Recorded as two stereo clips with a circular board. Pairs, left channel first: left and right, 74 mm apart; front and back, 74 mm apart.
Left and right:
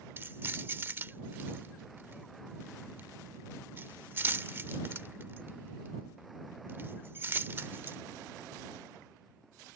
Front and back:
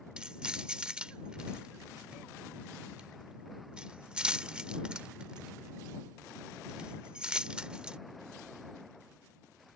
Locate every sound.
0.2 s keys jangling: 115° right